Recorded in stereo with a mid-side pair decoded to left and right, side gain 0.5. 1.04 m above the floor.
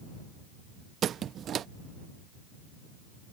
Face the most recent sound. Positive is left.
turn(degrees=-55)